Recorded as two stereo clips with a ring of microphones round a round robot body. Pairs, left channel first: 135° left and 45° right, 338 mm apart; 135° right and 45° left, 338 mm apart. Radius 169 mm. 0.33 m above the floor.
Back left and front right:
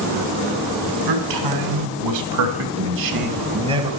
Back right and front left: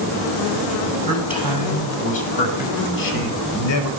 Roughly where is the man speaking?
Ahead right.